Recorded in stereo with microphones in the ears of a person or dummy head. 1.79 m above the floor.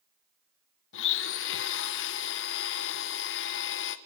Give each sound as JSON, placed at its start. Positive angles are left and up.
{"t": 0.9, "sound": "a blender", "side_deg": 65, "distance_m": 1.2}